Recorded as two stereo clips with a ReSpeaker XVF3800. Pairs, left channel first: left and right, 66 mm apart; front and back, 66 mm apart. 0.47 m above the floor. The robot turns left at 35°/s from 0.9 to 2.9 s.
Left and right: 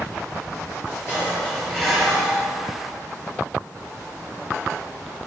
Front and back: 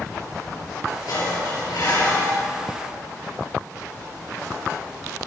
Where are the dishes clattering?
30° left, 5 m; by 2.4 s 15° right, 5 m.